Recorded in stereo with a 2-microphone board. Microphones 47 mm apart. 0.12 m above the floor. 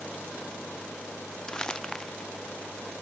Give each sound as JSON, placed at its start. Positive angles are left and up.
{"t": 1.5, "sound": "crumpling", "side_deg": 15}